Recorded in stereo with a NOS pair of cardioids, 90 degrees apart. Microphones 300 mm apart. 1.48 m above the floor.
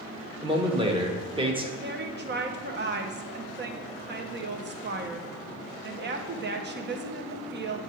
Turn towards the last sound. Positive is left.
turn(degrees=-35)